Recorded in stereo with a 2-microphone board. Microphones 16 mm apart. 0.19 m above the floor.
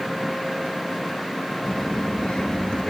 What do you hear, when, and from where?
1.6 s a child speaking: 55° left (ahead or behind), 1.4 m; by 2.9 s 70° left (ahead or behind), 2.0 m